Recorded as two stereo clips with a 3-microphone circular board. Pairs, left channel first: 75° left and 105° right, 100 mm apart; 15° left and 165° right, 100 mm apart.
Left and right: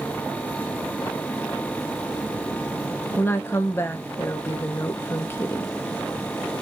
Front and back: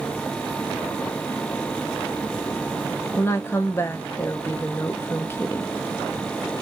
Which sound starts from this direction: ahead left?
A woman speaking, at 3.2 s.